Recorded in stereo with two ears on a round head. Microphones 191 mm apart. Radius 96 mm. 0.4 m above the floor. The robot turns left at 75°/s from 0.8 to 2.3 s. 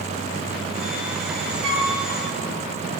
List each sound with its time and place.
1.6 s a flute: 65° right (ahead or behind), 2 m; by 1.9 s 50° right (ahead or behind), 2 m